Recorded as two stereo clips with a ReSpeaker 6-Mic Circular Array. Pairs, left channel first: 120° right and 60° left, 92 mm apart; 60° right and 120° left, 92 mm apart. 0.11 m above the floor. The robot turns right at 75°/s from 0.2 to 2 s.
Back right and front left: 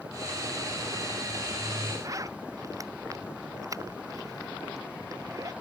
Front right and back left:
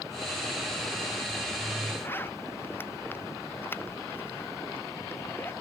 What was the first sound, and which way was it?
A zipper, 5° left.